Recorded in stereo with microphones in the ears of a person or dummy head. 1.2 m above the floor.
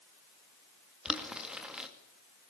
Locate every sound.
1.1 s boiling: 5° right (ahead or behind), 2 m